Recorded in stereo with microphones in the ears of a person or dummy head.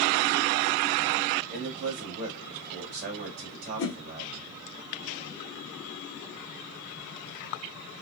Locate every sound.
1.5 s a man speaking: 55° right (ahead or behind), 1.8 m
3.8 s a whoosh: 75° left (ahead or behind), 1.0 m